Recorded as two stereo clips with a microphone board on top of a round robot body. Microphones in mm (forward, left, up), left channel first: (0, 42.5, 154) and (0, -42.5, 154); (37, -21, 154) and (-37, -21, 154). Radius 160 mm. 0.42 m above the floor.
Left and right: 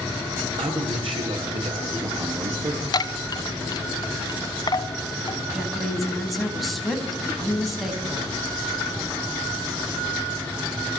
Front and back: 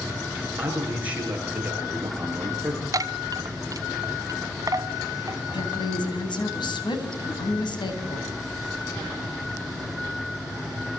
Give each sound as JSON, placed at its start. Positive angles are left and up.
{"t": 0.6, "sound": "a man speaking", "azimuth_deg": -110, "distance_m": 7.5}
{"t": 2.9, "sound": "a chime", "azimuth_deg": 135, "distance_m": 0.8}
{"t": 5.5, "sound": "a woman speaking", "azimuth_deg": 0, "distance_m": 4.5}